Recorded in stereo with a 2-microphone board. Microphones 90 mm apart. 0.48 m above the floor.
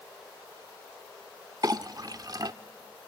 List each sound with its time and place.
1.6 s a clink: 45° right (ahead or behind), 0.6 m